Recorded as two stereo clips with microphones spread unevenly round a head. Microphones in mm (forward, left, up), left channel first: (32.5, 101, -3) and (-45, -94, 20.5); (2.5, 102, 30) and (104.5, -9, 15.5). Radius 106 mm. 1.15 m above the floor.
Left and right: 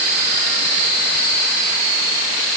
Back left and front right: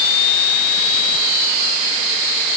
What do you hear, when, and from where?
Only background noise.